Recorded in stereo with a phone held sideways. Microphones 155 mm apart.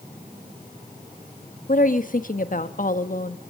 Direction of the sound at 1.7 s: 60° left (ahead or behind).